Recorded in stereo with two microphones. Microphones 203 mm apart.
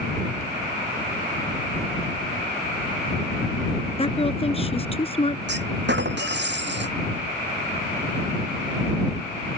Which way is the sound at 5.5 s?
60° right (ahead or behind).